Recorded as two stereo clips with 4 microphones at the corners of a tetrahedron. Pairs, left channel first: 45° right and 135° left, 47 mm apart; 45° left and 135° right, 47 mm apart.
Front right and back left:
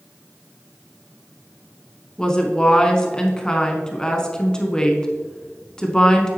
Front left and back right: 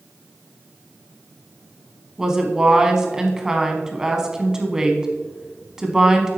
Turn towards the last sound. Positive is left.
turn(degrees=-90)